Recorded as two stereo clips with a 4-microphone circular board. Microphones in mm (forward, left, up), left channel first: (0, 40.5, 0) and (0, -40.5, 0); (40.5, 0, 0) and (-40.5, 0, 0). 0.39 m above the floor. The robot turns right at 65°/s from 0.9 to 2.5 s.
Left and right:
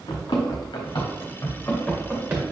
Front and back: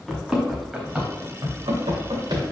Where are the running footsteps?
90° left, 2.5 m; by 2.4 s 145° right, 3.5 m.